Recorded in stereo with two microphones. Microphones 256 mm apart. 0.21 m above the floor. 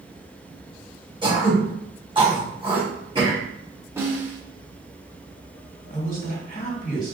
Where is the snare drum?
10° right (ahead or behind), 1.4 m.